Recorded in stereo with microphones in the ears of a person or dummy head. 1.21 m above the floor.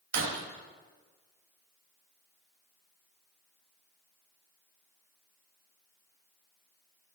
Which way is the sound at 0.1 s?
65° right (ahead or behind).